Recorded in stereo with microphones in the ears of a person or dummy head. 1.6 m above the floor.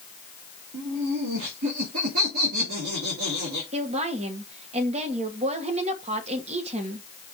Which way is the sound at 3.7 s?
40° right (ahead or behind).